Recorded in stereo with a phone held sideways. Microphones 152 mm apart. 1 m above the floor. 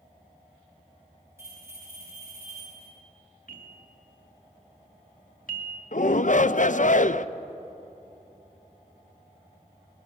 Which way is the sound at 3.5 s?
65° left (ahead or behind).